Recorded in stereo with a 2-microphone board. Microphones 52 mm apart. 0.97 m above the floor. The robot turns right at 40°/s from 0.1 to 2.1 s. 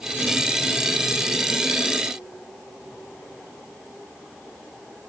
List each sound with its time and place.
Only background noise.